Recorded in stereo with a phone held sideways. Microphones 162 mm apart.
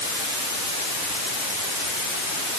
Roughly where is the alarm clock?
I don't hear an alarm clock.